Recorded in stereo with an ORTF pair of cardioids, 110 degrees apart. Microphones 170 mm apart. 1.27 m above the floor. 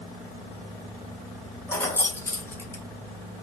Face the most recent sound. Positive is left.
turn(degrees=15)